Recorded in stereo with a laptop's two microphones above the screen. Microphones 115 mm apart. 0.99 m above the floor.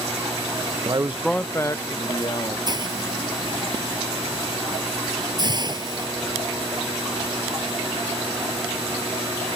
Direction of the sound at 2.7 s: 40° right (ahead or behind).